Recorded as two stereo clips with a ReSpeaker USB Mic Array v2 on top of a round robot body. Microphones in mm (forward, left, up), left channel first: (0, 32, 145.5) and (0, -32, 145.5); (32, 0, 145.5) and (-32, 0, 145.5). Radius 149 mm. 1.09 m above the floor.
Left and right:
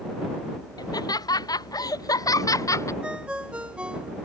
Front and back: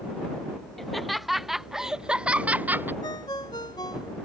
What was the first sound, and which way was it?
Laughter, 90° left.